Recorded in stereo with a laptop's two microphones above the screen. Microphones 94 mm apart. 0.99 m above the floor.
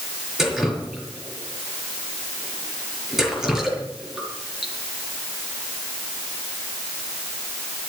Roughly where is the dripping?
Centre.